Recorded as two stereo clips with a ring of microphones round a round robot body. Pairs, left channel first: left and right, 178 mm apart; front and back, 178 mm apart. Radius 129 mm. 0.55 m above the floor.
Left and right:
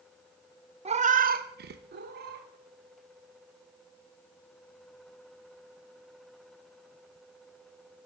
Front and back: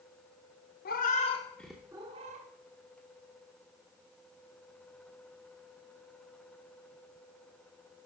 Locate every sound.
0.8 s a cat meowing: 35° right, 0.6 m; by 2.5 s 130° right, 0.7 m